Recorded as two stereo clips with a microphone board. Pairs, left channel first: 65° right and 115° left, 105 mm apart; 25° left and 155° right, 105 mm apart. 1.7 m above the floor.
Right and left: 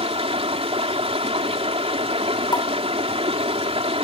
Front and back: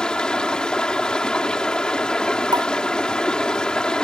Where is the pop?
110° right.